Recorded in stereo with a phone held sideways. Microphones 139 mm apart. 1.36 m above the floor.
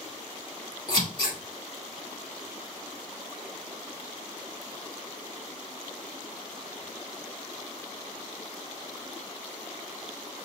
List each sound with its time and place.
0.9 s scissors: 35° left (ahead or behind), 2 m